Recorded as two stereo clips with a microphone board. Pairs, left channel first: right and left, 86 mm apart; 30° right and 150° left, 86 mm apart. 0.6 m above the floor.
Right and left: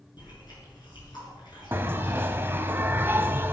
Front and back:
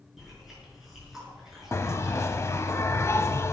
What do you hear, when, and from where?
0.2 s chewing: 125° right, 6.5 m
1.7 s a bell: 25° left, 0.9 m